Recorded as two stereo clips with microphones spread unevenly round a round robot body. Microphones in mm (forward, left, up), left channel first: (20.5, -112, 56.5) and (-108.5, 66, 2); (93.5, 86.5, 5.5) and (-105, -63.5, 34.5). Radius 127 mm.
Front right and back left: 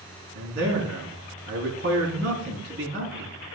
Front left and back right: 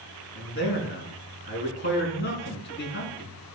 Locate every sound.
0.3 s a man speaking: 85° left, 4 m